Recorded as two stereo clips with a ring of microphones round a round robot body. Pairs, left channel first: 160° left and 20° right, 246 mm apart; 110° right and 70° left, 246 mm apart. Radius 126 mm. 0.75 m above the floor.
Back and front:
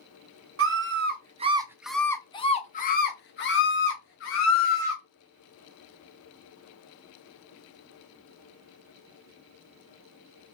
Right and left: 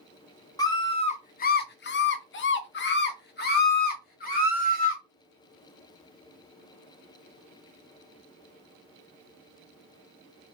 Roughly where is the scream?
Ahead right.